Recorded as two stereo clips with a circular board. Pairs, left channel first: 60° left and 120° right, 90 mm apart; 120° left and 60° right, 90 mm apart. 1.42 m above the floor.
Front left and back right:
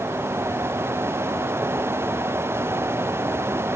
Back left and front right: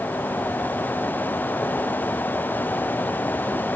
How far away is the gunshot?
No gunshot in this recording.